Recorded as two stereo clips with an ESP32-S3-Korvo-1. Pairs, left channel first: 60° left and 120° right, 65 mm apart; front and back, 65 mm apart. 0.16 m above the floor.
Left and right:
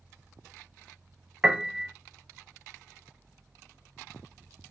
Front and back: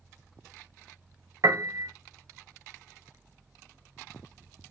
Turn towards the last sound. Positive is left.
turn(degrees=165)